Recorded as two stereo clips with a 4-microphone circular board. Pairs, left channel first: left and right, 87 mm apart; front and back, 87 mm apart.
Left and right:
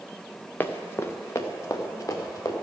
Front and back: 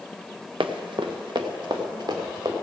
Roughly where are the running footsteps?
Behind left.